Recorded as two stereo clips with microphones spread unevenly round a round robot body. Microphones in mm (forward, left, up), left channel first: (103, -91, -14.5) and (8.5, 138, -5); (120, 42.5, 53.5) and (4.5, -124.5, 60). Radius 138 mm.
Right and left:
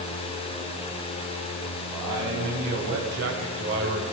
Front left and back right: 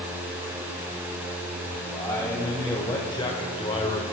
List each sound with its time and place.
1.9 s a man speaking: 130° left, 3 m; by 4.0 s 100° left, 1.4 m